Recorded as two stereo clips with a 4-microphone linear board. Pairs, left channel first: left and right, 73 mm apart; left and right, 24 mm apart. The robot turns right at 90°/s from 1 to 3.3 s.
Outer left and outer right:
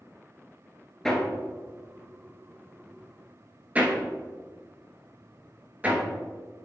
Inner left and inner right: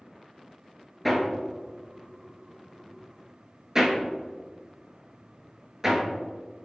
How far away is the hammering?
About 0.6 m.